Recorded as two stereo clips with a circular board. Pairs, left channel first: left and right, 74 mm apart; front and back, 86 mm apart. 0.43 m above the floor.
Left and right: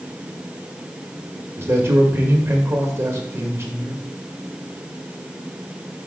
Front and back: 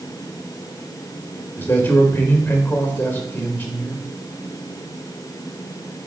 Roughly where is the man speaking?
Ahead right.